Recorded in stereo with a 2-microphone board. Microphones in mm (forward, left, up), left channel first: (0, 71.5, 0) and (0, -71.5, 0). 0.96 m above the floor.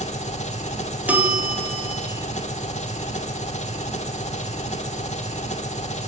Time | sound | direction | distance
0.0 | an engine running | 55° left (ahead or behind) | 1.7 m
1.1 | a bell | 10° right (ahead or behind) | 1.7 m